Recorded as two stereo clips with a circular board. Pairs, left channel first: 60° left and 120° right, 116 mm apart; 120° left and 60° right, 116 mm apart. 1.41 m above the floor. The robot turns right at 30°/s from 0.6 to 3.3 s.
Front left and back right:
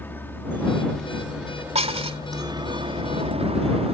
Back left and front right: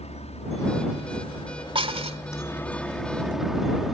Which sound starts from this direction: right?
Dishes clattering, at 1.8 s.